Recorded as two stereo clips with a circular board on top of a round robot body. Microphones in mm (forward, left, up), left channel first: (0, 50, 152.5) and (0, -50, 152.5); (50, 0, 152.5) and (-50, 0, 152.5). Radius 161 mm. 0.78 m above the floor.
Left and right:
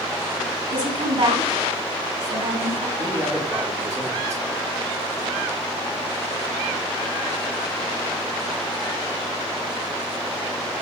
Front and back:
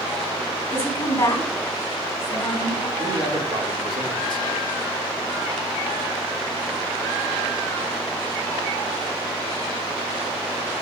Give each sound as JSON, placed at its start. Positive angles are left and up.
{"t": 0.7, "sound": "a woman speaking", "azimuth_deg": -60, "distance_m": 4.0}
{"t": 3.0, "sound": "a man speaking", "azimuth_deg": -145, "distance_m": 1.9}